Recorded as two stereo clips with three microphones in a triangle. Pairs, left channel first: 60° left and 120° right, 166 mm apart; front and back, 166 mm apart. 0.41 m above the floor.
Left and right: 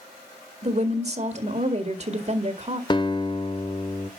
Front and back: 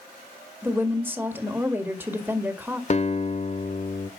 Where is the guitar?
10° left, 0.9 m.